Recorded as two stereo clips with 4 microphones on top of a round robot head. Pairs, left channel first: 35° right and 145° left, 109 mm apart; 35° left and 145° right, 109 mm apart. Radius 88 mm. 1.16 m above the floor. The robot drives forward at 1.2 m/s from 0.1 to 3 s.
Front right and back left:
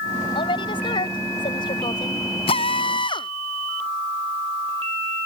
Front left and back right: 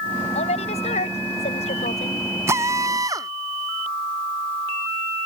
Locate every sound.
0.3 s a woman speaking: 10° left; by 2.3 s 15° left
2.5 s a drill: 75° right; by 3.3 s 85° right